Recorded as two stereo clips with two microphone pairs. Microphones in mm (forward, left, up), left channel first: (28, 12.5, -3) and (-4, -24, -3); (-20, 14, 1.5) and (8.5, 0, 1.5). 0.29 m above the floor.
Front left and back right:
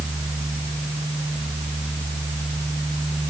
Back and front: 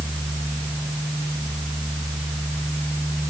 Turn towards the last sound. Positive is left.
No sound to turn to.